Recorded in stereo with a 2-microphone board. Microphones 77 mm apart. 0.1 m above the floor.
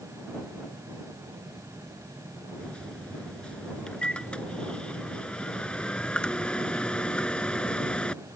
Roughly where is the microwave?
Centre.